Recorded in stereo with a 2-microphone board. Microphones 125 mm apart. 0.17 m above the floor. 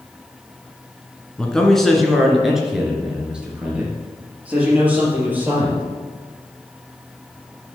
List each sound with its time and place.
1.4 s a man speaking: 5° left (ahead or behind), 1.7 m; by 5.8 s 15° right (ahead or behind), 4 m